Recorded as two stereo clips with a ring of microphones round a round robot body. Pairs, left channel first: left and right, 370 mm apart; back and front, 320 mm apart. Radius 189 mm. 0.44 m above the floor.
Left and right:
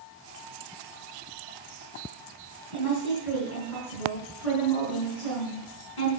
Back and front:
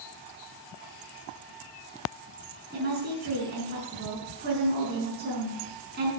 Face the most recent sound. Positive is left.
turn(degrees=60)